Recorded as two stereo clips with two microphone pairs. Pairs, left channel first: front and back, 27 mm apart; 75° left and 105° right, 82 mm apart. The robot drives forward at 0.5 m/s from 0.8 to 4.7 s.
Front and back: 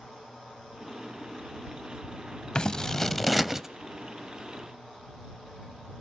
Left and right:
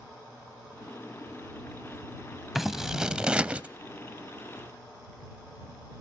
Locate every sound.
2.5 s scissors: 20° right, 0.7 m; by 3.7 s 140° right, 0.6 m